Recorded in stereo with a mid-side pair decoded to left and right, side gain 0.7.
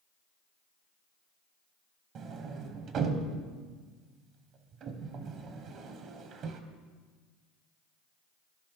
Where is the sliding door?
50° right, 1.0 m.